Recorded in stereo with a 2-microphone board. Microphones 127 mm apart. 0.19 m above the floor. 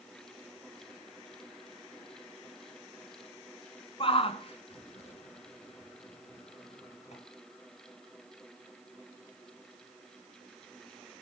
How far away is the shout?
About 2 m.